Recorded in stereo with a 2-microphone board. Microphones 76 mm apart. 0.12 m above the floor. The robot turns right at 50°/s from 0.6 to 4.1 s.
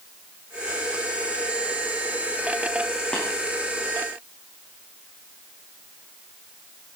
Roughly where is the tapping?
Centre.